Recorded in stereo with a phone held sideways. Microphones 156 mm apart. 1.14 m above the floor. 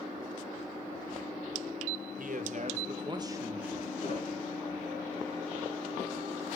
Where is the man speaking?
65° right (ahead or behind), 1.8 m; by 3.9 s 5° right (ahead or behind), 1.9 m.